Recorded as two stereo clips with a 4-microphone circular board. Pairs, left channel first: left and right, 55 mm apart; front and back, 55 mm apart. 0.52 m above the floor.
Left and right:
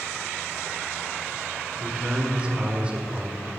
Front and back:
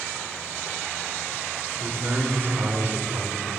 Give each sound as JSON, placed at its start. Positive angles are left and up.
{"t": 1.8, "sound": "a man speaking", "azimuth_deg": -150, "distance_m": 1.6}